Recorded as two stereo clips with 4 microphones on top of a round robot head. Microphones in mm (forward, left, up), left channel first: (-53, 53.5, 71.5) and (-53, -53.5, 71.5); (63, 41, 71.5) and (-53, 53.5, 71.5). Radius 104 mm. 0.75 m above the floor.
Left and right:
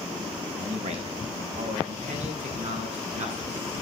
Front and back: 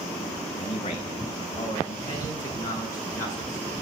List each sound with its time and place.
0.6 s a man speaking: 55° right, 5.5 m; by 3.7 s 75° right, 9 m